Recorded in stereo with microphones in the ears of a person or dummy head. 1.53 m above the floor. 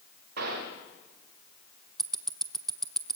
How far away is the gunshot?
About 4 m.